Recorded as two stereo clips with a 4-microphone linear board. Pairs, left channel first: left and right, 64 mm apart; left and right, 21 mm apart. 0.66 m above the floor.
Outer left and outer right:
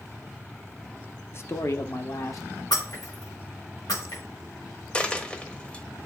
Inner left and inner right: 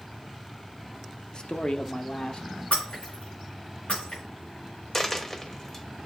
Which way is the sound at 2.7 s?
80° left.